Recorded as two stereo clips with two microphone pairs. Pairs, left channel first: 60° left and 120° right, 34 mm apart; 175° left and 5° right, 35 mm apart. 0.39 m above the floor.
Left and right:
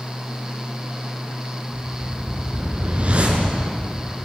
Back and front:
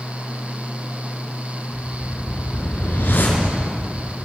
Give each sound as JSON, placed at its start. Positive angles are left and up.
{"t": 1.7, "sound": "a whoosh", "azimuth_deg": -170, "distance_m": 5.0}